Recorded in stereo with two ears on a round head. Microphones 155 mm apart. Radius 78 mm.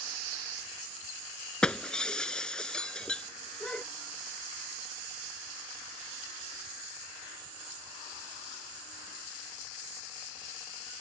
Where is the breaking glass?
5° left (ahead or behind).